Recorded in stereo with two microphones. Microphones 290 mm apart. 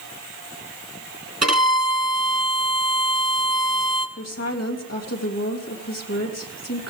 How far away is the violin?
About 2.5 m.